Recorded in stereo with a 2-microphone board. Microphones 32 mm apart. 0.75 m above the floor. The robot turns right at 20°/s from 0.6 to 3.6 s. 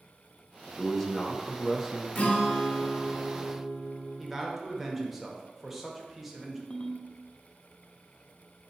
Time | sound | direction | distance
0.7 | a man speaking | 15° left (ahead or behind) | 0.7 m
2.1 | a guitar | 45° left (ahead or behind) | 0.9 m
4.2 | a man speaking | 5° right (ahead or behind) | 0.8 m
6.7 | a ringtone | 30° left (ahead or behind) | 0.6 m